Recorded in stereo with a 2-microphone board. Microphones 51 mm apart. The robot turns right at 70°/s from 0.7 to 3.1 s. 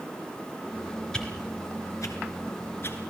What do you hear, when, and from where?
1.1 s a whoosh: 15° left (ahead or behind), 4 m; by 3.1 s 30° left (ahead or behind), 4 m